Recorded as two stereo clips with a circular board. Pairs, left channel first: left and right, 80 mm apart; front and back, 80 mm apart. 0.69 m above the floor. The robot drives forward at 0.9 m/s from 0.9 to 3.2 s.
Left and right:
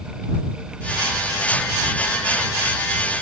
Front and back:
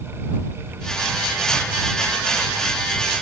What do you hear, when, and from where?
Only background noise.